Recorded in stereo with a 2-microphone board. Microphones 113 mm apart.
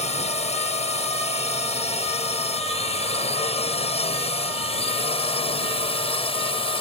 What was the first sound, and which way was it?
A drone, 75° left (ahead or behind).